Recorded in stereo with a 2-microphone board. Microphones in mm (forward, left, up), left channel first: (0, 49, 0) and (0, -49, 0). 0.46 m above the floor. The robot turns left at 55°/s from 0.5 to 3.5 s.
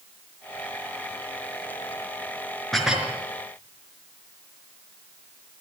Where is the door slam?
I don't hear a door slam.